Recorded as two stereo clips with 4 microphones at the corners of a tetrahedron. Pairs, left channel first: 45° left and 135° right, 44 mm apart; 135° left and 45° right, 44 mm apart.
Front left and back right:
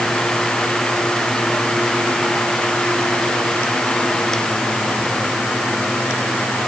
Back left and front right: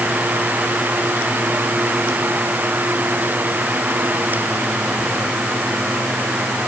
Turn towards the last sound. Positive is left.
No sound to turn to.